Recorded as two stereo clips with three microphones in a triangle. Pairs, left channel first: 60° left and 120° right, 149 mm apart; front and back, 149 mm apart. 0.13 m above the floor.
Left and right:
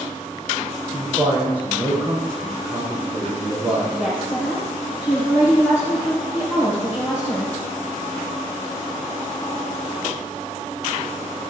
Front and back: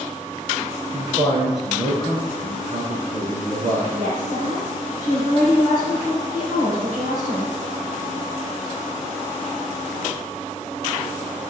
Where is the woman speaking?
165° left, 3 m.